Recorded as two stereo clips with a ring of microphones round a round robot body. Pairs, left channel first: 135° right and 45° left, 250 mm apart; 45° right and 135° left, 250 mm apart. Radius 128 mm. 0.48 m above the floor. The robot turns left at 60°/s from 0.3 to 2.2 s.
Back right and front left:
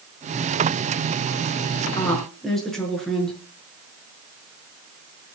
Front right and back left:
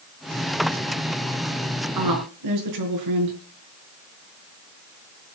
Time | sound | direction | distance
1.9 | a woman speaking | 150° left | 7 m